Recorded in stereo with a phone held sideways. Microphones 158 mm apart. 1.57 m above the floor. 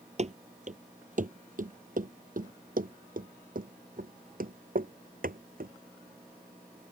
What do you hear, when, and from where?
0.2 s running footsteps: 45° right (ahead or behind); by 5.7 s 65° right (ahead or behind)